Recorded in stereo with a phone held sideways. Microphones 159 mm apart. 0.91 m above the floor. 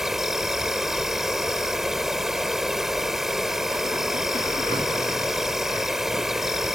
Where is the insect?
5° right (ahead or behind).